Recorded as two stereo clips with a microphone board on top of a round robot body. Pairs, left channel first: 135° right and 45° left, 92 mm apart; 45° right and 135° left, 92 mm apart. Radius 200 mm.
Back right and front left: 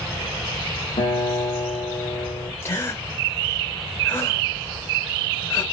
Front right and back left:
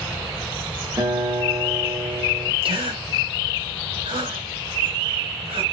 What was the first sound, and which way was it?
A guitar, 165° right.